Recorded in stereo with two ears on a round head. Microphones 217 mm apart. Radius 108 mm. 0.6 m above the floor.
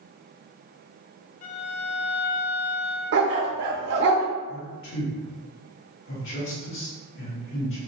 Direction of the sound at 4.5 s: 55° left (ahead or behind).